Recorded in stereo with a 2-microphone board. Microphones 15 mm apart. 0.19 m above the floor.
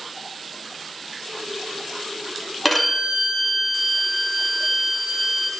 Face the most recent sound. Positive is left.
turn(degrees=5)  # may be behind; listen again after turning